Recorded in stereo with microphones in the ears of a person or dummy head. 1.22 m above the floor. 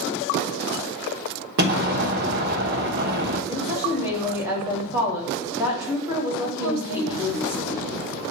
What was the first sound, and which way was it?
An explosion, 45° right (ahead or behind).